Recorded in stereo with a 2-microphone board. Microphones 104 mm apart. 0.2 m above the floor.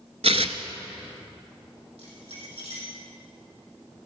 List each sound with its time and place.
0.2 s tearing paper: 75° right (ahead or behind), 0.8 m
2.0 s keys jangling: 75° right (ahead or behind), 5.5 m